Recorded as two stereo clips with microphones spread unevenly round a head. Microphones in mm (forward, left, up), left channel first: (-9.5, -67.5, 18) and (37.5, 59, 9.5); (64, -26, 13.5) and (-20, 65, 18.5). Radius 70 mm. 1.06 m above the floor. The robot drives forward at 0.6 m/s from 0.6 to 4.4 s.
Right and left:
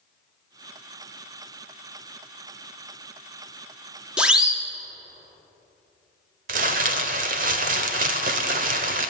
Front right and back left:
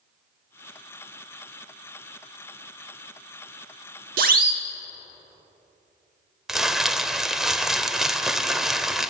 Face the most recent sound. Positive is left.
turn(degrees=50)